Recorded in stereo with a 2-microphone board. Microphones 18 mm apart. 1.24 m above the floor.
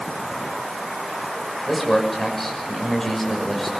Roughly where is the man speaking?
Centre.